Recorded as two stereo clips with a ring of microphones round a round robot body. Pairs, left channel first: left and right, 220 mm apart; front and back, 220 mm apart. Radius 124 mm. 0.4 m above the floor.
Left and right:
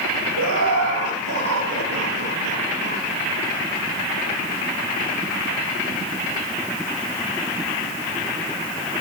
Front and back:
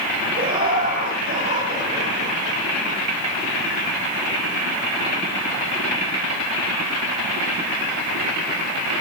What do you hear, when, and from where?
0.4 s laughter: 120° right, 8.5 m